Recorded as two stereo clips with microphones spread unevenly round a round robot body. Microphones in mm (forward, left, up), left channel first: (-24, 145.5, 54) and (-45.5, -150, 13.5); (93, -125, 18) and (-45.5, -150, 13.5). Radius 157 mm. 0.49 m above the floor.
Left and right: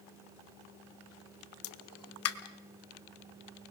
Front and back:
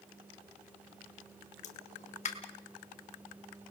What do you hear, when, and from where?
1.6 s a pop: 45° left, 1.1 m